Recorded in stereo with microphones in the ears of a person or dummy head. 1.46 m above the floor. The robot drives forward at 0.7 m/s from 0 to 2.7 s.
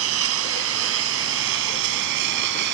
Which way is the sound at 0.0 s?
75° right (ahead or behind).